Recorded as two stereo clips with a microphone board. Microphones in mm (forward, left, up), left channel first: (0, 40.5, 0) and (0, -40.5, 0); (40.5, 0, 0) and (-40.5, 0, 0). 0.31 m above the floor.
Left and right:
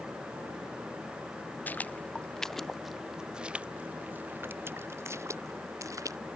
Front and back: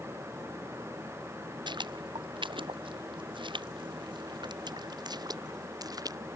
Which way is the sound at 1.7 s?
160° left.